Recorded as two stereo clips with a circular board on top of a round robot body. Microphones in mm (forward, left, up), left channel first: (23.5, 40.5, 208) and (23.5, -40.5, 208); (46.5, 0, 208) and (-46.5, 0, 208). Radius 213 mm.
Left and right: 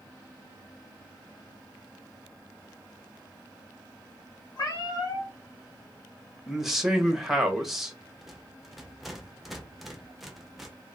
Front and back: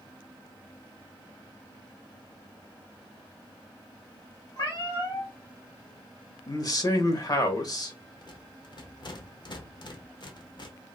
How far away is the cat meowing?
About 2 m.